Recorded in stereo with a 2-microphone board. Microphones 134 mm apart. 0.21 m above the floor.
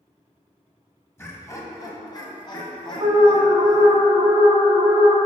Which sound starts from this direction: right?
An alarm, at 3.0 s.